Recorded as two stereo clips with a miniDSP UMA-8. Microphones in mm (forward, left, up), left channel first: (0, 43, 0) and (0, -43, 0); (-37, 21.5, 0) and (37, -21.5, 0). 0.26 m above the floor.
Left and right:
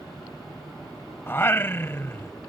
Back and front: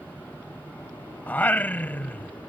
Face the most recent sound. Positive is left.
turn(degrees=110)